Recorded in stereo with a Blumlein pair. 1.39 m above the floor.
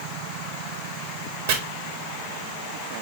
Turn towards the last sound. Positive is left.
turn(degrees=-60)